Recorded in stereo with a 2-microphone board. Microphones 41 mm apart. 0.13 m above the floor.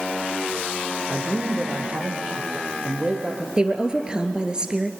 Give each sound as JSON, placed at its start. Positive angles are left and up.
{"t": 1.1, "sound": "a man speaking", "side_deg": -30, "distance_m": 4.0}
{"t": 3.6, "sound": "a woman speaking", "side_deg": -20, "distance_m": 1.9}